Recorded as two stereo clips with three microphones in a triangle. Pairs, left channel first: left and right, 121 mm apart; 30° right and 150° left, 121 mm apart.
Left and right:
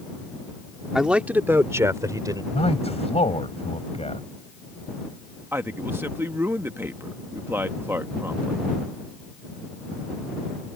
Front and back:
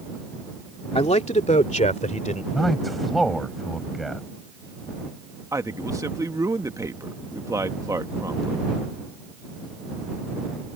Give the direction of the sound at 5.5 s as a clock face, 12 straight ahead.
5 o'clock.